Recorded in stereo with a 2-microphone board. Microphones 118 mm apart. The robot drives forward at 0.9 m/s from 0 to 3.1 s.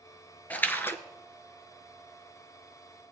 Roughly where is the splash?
Centre.